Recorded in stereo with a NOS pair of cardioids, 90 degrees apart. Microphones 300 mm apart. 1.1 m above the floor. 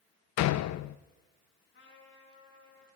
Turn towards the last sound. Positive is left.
turn(degrees=40)